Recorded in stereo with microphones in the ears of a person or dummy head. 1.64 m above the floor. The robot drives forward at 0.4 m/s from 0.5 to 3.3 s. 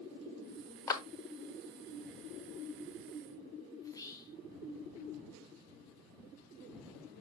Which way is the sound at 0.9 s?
20° left (ahead or behind).